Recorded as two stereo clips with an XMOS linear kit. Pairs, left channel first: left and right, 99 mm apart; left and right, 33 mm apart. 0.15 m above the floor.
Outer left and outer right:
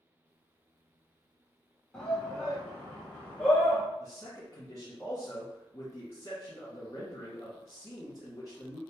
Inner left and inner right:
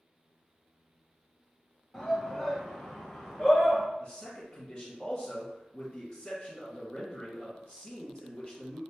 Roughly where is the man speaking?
Left.